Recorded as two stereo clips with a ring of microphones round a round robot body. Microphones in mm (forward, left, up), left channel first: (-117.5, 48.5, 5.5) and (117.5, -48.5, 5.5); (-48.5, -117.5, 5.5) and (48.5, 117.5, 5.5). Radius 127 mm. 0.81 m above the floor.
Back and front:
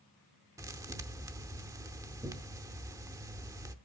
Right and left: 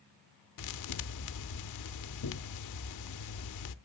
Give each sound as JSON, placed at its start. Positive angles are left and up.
{"t": 0.6, "sound": "a thud", "azimuth_deg": -100, "distance_m": 0.7}